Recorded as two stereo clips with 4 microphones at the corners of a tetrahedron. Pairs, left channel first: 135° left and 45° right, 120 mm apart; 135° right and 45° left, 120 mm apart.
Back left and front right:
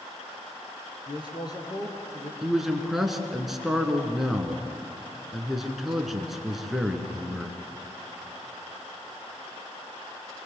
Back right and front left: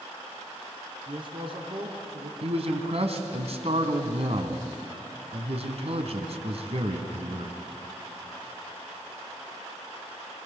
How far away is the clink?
I don't hear a clink.